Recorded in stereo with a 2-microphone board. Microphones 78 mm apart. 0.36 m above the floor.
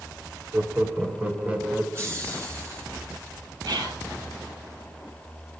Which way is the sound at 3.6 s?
75° right (ahead or behind).